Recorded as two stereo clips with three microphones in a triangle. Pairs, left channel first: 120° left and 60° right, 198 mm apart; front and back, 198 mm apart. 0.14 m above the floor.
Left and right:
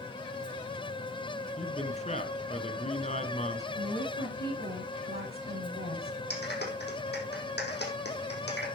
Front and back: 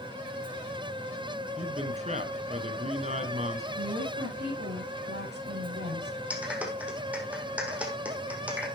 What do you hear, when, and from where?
1.6 s a man speaking: 150° left, 1.8 m
3.8 s a woman speaking: 155° left, 8.5 m
6.3 s a clap: 95° left, 4 m